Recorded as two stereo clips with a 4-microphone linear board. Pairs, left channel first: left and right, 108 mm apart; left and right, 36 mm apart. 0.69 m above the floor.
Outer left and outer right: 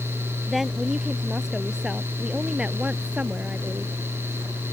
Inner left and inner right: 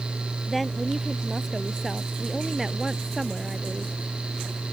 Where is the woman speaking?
Centre (ahead or behind); by 3.9 s 15° right (ahead or behind).